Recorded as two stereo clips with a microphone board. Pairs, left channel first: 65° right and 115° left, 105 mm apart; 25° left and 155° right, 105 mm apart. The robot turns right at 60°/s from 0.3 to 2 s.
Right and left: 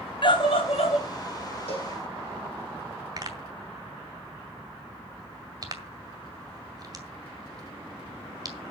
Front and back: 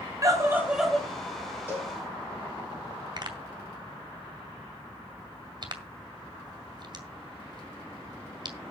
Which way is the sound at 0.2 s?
100° right.